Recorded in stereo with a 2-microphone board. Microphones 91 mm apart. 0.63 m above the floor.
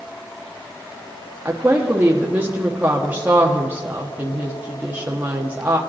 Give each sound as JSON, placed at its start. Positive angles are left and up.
{"t": 1.4, "sound": "a woman speaking", "side_deg": -20, "distance_m": 1.1}